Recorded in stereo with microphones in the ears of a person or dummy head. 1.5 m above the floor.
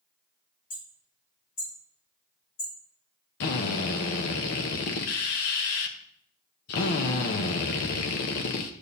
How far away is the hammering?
About 6 m.